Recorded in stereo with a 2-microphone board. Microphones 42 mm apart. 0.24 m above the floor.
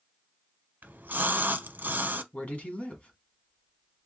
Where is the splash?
50° right (ahead or behind), 0.7 m.